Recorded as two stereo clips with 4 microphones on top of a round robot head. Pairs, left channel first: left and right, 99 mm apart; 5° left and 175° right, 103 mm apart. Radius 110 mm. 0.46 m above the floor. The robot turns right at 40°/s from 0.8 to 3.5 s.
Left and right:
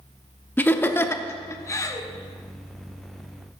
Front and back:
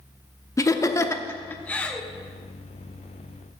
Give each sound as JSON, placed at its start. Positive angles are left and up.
{"t": 0.6, "sound": "laughter", "azimuth_deg": 35, "distance_m": 0.9}